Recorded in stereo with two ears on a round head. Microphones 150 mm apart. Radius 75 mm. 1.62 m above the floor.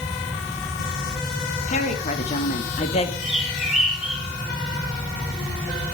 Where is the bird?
5° right (ahead or behind), 7.5 m.